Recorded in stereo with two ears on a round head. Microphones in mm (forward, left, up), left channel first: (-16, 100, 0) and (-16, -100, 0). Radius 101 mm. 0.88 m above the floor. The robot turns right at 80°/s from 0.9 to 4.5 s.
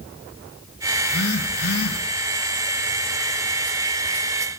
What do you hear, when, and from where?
1.0 s a phone buzzing: 30° left, 9.5 m; by 2.0 s 110° left, 9.5 m